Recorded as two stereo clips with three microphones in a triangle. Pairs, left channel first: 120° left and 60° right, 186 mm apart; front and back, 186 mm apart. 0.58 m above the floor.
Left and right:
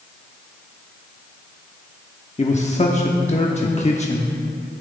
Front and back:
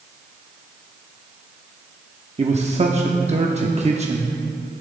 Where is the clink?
No clink in this recording.